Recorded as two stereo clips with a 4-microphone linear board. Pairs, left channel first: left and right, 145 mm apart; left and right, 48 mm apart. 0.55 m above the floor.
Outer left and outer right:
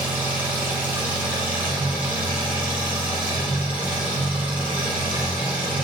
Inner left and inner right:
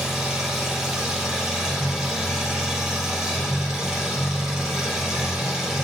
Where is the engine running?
10° right (ahead or behind), 4 m.